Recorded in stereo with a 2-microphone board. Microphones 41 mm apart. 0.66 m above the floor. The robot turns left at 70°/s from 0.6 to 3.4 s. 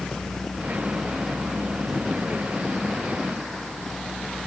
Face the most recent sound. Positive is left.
No sound to turn to.